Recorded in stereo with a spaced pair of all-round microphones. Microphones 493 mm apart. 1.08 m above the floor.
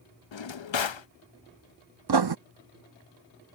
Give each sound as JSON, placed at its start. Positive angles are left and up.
{"t": 0.3, "sound": "a drawer", "side_deg": 70}
{"t": 2.1, "sound": "writing", "side_deg": -55}